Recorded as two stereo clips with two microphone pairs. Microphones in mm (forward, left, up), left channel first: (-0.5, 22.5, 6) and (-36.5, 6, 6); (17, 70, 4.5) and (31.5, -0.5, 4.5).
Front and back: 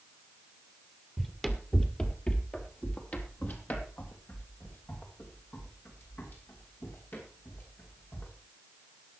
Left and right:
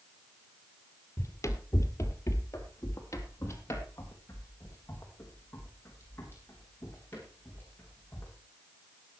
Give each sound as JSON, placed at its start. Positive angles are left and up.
{"t": 1.2, "sound": "running footsteps", "azimuth_deg": 105, "distance_m": 2.0}